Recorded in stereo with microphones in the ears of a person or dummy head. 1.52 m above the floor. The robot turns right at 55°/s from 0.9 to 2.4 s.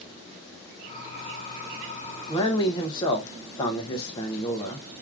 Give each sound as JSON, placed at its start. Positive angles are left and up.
{"t": 2.3, "sound": "a man speaking", "side_deg": 20, "distance_m": 0.6}